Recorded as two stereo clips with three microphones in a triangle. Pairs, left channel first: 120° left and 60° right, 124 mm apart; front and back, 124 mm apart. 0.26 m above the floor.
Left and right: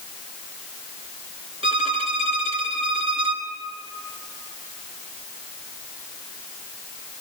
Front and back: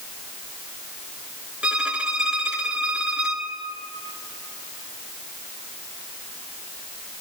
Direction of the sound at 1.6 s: 100° right.